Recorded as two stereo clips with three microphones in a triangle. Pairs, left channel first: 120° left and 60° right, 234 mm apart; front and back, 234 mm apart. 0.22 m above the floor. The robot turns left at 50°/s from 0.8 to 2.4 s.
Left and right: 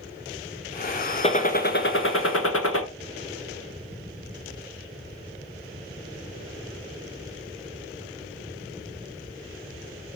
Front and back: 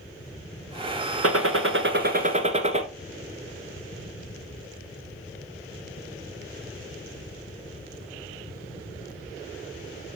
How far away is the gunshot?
About 1.0 m.